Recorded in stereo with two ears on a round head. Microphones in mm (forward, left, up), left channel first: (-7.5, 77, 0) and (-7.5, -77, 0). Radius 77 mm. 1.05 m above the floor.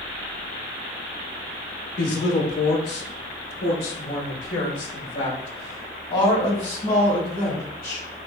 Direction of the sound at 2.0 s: 65° left (ahead or behind).